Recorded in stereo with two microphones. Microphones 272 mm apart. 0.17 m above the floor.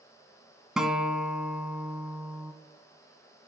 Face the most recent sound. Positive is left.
turn(degrees=0)  # may be behind; listen again after turning